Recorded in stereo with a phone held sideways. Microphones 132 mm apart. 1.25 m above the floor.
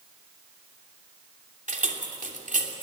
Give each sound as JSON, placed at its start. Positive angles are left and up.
{"t": 1.7, "sound": "keys jangling", "side_deg": -75, "distance_m": 3.0}